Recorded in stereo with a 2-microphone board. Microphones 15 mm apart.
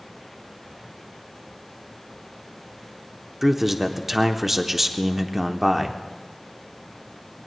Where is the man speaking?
20° right (ahead or behind), 0.9 m.